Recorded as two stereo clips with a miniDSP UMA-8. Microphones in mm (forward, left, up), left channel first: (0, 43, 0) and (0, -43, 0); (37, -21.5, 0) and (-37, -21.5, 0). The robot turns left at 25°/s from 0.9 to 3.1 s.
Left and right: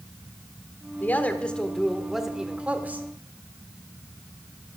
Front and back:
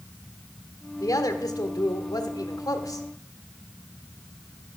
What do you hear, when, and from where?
1.0 s a woman speaking: 25° left, 1.3 m; by 3.1 s 25° right, 1.3 m